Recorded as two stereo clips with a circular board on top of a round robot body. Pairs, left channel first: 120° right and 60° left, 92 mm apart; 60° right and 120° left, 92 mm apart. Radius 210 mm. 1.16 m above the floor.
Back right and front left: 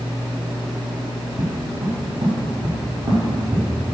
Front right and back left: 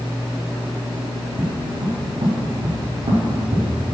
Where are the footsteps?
80° left, 3 m; by 4.0 s 115° left, 3.5 m.